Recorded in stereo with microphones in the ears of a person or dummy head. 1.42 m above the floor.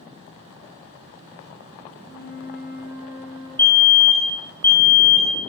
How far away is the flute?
About 0.6 m.